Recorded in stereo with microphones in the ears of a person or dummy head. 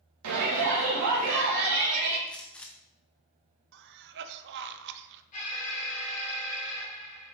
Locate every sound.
0.2 s a shout: 85° right, 1.7 m
2.3 s a gunshot: 5° left (ahead or behind), 1.2 m
3.7 s a cough: 60° right (ahead or behind), 1.0 m
5.3 s an alarm: 40° left (ahead or behind), 4.5 m